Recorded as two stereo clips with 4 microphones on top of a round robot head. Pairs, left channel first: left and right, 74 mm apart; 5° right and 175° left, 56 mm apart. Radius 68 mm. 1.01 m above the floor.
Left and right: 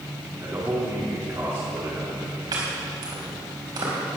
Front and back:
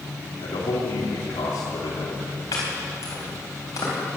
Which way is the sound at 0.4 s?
30° right.